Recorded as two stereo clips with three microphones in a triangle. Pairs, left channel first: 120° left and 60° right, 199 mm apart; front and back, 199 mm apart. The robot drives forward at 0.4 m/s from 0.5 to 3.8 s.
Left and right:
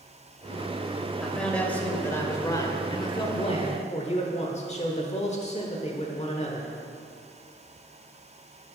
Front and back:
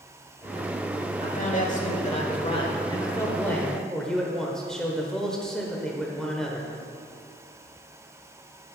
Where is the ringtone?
I don't hear a ringtone.